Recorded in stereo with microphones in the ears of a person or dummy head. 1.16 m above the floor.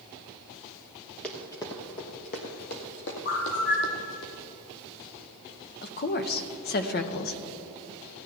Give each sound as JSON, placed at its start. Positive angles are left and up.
{"t": 1.2, "sound": "running footsteps", "side_deg": 5, "distance_m": 1.3}
{"t": 3.2, "sound": "a bird", "side_deg": 50, "distance_m": 2.0}
{"t": 5.8, "sound": "a woman speaking", "side_deg": 40, "distance_m": 0.8}